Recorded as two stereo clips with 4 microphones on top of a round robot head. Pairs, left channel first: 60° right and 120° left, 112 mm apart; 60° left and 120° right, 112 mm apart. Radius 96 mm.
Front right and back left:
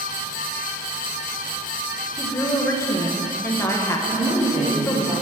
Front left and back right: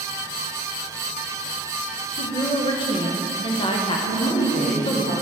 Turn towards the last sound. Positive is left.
turn(degrees=65)